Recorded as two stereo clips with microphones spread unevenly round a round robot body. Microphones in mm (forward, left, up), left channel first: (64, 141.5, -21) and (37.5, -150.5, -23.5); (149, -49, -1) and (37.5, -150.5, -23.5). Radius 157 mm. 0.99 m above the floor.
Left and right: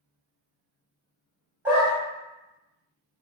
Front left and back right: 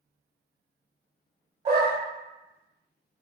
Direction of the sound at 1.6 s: 175° right.